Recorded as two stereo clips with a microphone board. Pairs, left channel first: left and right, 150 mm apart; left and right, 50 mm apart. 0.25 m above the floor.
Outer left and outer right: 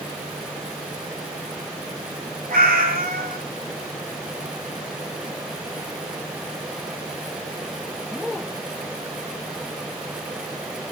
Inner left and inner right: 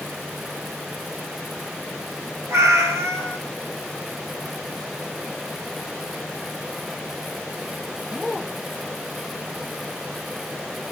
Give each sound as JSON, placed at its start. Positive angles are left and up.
{"t": 2.5, "sound": "a cat meowing", "side_deg": -80, "distance_m": 1.5}